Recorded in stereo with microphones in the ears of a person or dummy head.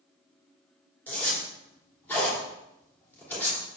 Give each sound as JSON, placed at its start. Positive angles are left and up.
{"t": 1.1, "sound": "a zipper", "side_deg": 10, "distance_m": 3.0}